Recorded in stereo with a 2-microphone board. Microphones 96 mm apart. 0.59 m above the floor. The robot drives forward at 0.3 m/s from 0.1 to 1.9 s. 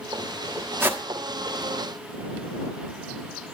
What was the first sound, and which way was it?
A whoosh, 20° right (ahead or behind).